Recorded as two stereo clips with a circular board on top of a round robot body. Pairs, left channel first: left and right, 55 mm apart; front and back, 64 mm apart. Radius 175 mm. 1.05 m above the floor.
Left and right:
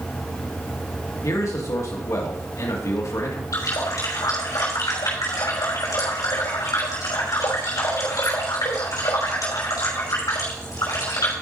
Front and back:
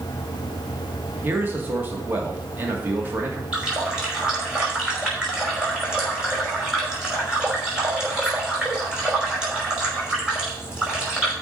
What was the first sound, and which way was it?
A man speaking, 120° left.